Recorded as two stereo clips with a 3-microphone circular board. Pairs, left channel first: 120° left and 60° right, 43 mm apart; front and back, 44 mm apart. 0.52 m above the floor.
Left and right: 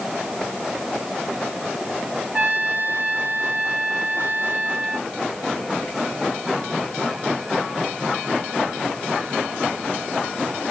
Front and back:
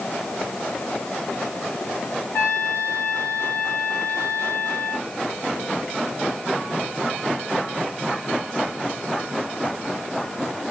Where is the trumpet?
10° right, 2.5 m.